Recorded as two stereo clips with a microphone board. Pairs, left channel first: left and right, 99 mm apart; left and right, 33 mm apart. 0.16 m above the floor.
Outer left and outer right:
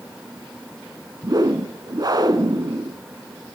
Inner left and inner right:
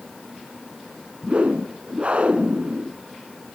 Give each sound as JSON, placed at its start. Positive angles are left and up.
{"t": 1.2, "sound": "a whoosh", "side_deg": -45, "distance_m": 0.6}